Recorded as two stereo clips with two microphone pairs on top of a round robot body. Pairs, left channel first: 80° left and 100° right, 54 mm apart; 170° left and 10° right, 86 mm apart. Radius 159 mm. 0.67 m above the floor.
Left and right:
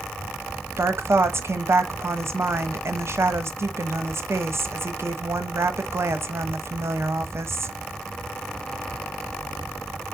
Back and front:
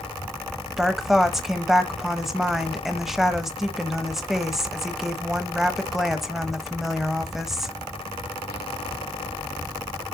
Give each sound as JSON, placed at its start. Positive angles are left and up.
{"t": 0.8, "sound": "a woman speaking", "azimuth_deg": -100, "distance_m": 1.0}